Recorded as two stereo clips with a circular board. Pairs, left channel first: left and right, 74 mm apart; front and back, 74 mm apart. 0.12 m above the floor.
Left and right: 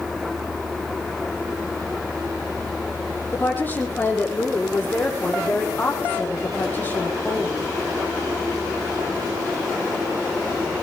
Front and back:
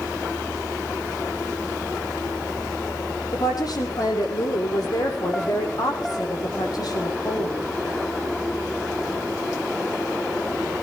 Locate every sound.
3.3 s a woman speaking: 30° left, 5.5 m